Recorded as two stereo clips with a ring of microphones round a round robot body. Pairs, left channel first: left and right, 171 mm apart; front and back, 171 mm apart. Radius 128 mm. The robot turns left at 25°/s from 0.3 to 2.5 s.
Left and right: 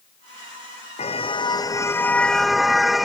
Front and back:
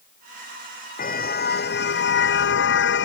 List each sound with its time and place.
1.0 s a car horn: 35° left; by 3.1 s straight ahead